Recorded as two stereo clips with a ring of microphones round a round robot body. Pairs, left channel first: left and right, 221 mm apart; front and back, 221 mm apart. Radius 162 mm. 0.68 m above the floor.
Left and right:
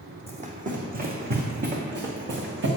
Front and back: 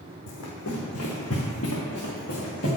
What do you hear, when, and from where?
0.3 s running footsteps: 30° right, 1.9 m; by 2.7 s 65° right, 3 m